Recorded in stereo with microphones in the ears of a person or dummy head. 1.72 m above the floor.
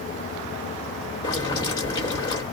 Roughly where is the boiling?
Left.